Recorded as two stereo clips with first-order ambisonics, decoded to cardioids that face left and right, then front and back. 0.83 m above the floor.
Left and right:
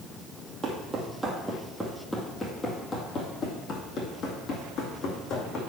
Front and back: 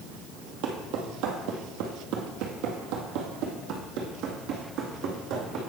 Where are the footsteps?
160° right, 1.8 m; by 5.6 s 135° left, 3 m.